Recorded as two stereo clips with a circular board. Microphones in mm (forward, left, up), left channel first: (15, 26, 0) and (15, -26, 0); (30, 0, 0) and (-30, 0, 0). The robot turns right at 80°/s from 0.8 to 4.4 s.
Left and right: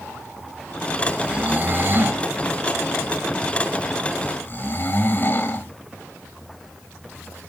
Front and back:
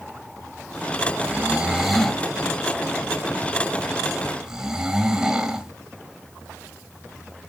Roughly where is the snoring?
Behind right.